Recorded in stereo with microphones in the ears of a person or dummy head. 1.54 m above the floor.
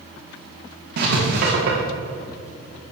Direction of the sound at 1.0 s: 50° right (ahead or behind).